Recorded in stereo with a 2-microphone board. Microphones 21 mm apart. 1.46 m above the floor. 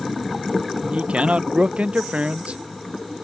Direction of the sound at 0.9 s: 60° right (ahead or behind).